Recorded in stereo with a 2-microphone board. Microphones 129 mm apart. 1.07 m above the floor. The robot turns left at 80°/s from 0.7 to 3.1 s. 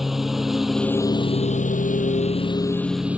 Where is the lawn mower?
Straight behind; by 3.2 s 10° right.